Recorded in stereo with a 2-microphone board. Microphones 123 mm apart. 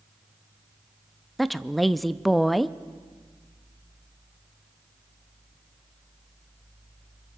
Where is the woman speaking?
Centre (ahead or behind), 0.5 m.